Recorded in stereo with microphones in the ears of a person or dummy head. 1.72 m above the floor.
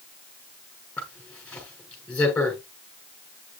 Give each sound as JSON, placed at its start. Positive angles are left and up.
{"t": 1.0, "sound": "a zipper", "side_deg": 10, "distance_m": 6.0}